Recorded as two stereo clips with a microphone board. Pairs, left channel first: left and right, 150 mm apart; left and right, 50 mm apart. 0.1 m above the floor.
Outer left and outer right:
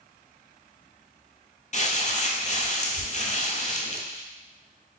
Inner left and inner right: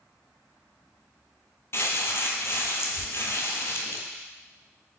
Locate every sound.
1.7 s crumpling: 55° left (ahead or behind), 0.8 m